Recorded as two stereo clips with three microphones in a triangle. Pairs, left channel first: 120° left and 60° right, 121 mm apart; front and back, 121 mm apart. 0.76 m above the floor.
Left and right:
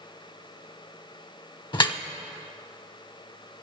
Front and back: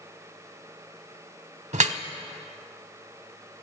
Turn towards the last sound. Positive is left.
turn(degrees=170)